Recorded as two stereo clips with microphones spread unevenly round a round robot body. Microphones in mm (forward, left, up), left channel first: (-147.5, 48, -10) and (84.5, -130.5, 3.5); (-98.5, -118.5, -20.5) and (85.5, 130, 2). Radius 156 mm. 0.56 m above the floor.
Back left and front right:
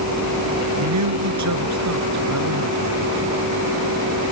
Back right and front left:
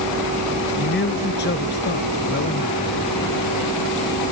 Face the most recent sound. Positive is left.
turn(degrees=-65)